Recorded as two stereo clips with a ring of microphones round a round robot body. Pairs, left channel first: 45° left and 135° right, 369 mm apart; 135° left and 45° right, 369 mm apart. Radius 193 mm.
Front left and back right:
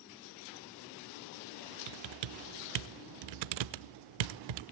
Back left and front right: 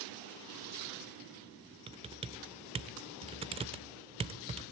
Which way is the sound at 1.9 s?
120° right.